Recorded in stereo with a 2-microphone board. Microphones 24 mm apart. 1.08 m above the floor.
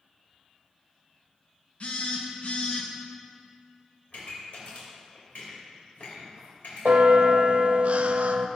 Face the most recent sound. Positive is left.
turn(degrees=-60)  # may be behind; listen again after turning